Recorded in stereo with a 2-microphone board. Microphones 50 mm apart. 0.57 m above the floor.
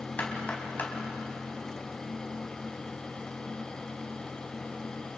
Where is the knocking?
35° left (ahead or behind), 4 m.